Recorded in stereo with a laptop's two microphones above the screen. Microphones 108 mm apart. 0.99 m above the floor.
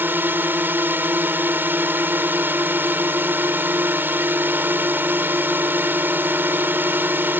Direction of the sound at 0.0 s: 20° right (ahead or behind).